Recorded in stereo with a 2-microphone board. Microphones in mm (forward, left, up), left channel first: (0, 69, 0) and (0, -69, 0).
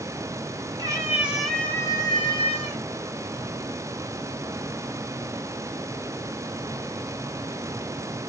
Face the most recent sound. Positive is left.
turn(degrees=50)  # may be behind; listen again after turning